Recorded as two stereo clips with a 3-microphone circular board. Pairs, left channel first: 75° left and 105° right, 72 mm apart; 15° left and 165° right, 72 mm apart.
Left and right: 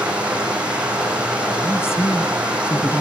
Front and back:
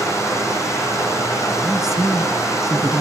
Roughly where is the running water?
Ahead right.